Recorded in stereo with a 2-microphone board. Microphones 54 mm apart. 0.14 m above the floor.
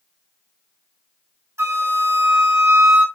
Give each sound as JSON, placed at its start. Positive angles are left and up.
{"t": 1.6, "sound": "a flute", "side_deg": -60, "distance_m": 2.0}